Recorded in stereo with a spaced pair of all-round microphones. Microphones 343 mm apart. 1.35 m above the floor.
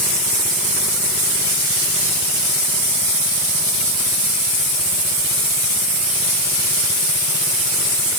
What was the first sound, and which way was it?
Only background noise.